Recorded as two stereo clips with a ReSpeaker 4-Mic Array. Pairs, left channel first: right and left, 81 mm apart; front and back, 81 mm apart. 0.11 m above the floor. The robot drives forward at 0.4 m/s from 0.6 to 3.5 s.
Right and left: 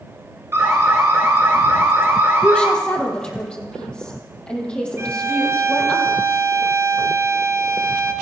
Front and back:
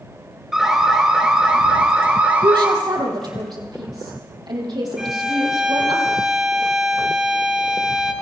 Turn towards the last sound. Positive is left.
turn(degrees=100)